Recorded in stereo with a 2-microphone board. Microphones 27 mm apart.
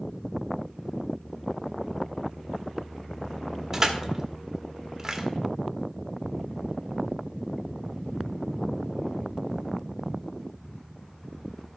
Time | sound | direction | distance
3.7 | crushing | 20° right (ahead or behind) | 1.5 m